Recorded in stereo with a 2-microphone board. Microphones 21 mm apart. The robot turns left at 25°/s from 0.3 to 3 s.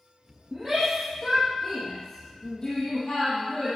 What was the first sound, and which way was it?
A shout, 25° right (ahead or behind).